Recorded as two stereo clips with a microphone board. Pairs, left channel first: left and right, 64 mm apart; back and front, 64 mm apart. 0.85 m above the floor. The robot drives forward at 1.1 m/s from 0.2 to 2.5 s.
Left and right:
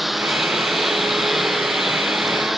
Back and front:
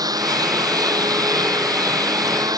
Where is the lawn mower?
Straight ahead.